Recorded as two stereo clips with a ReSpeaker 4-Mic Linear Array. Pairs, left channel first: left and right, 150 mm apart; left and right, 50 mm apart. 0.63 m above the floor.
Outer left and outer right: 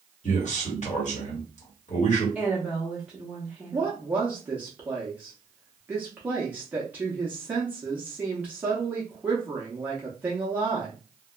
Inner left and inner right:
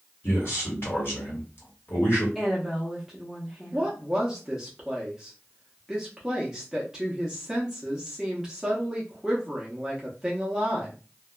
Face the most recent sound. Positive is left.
turn(degrees=-10)  # may be behind; listen again after turning